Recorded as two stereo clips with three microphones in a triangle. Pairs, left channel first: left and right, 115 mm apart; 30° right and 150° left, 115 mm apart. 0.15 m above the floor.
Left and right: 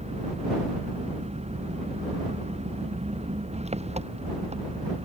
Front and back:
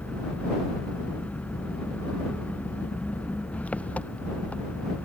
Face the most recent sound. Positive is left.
turn(degrees=-110)